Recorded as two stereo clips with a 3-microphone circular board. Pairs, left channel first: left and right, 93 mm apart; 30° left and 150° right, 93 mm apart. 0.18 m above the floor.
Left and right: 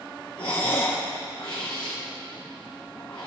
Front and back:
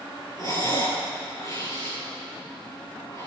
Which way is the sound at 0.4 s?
80° left.